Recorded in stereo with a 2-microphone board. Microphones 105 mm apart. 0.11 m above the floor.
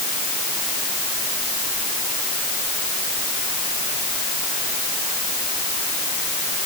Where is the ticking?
I don't hear ticking.